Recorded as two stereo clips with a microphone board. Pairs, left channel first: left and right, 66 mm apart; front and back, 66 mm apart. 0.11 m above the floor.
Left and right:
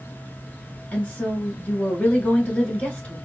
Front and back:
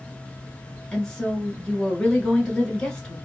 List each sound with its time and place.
0.9 s a woman speaking: 60° left, 1.3 m